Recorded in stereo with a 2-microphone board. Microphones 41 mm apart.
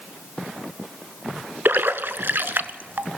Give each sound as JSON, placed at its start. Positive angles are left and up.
{"t": 1.6, "sound": "a splash", "side_deg": -60, "distance_m": 0.5}